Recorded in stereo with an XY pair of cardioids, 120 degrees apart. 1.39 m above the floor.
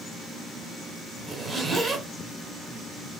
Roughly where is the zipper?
Ahead right.